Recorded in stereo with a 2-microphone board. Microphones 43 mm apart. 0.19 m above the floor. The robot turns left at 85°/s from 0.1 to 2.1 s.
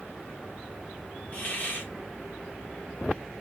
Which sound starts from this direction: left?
A hiss, at 1.3 s.